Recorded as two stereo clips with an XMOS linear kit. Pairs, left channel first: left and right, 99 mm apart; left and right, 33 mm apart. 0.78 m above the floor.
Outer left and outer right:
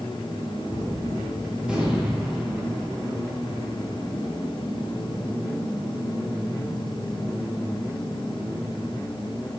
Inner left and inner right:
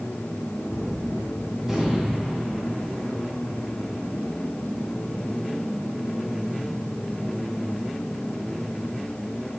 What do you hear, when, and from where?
0.7 s a gunshot: 10° right (ahead or behind), 8 m